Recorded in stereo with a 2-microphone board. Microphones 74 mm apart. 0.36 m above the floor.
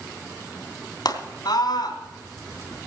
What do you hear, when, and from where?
1.1 s a scream: 65° left (ahead or behind), 3 m